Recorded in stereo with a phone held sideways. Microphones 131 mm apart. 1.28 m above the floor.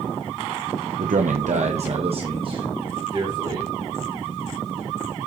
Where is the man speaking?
80° right, 0.9 m; by 3.7 s 35° right (ahead or behind), 3.5 m.